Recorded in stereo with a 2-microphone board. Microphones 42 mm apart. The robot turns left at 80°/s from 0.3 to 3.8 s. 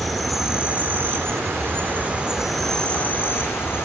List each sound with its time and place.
0.0 s an insect: straight ahead, 1.7 m; by 3.9 s 80° left, 1.7 m